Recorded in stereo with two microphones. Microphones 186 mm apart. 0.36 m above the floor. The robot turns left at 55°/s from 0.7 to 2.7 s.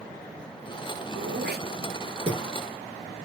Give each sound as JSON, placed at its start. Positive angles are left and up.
{"t": 1.2, "sound": "throat clearing", "side_deg": -85, "distance_m": 3.5}